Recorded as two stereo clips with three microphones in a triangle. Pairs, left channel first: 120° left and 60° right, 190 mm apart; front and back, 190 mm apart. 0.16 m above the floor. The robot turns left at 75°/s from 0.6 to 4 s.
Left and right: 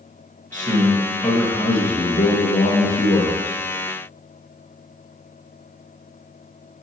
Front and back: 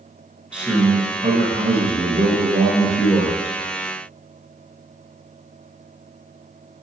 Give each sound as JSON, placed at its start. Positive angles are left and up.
{"t": 0.5, "sound": "a man speaking", "azimuth_deg": -95, "distance_m": 2.5}